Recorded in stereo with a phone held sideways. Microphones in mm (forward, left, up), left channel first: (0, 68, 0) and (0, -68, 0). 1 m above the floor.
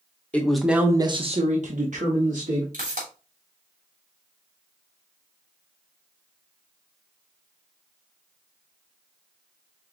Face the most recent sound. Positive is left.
turn(degrees=-70)  # may be behind; listen again after turning